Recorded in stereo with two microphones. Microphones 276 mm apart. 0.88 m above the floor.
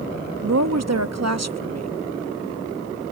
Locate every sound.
0.4 s a woman speaking: 70° right (ahead or behind)